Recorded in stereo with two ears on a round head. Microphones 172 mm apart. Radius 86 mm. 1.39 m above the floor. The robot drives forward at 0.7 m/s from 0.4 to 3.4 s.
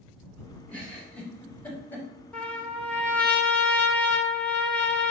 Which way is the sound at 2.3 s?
5° left (ahead or behind).